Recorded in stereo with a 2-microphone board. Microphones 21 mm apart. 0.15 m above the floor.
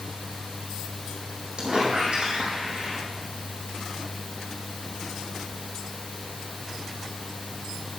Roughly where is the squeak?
Right.